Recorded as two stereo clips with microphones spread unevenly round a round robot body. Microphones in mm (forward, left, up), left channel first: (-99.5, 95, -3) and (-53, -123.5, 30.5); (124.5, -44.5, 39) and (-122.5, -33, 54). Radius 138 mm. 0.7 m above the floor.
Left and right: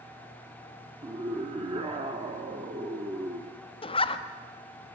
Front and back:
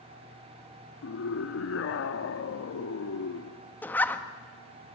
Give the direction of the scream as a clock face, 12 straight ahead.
12 o'clock.